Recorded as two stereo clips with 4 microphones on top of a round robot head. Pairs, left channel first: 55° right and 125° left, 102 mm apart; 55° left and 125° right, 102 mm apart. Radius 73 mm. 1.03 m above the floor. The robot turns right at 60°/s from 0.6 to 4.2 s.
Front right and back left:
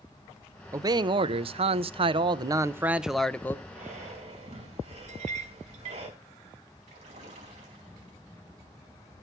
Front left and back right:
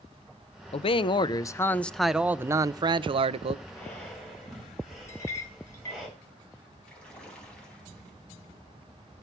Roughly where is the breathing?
Behind left.